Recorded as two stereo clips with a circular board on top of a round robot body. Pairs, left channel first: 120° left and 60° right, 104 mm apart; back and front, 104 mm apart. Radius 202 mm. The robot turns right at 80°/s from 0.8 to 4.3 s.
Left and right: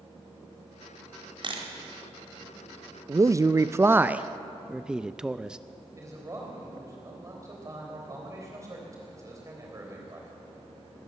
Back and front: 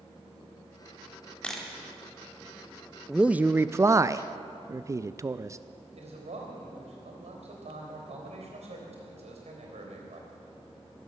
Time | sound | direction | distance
1.4 | a camera shutter | 100° right | 1.4 m
3.1 | a man speaking | 85° right | 0.5 m
6.0 | a man speaking | straight ahead | 3.5 m